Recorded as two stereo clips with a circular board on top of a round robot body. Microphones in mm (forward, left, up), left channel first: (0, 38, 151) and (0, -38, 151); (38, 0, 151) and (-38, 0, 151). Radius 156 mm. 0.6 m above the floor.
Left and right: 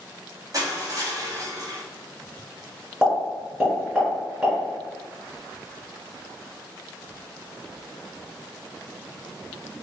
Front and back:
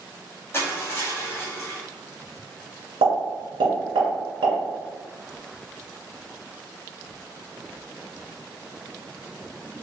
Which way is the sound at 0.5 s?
55° right.